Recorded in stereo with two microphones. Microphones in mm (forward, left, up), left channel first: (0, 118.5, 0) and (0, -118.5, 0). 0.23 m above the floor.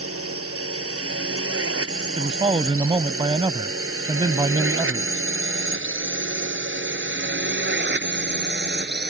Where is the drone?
75° right (ahead or behind); by 9.1 s 45° right (ahead or behind).